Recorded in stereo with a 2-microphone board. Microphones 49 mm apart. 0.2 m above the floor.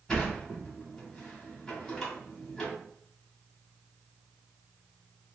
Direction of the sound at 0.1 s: 10° left (ahead or behind).